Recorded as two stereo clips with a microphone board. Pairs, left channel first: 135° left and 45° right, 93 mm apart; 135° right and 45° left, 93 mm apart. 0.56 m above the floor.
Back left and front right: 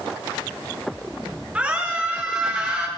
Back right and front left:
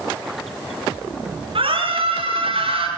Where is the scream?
35° left, 8 m.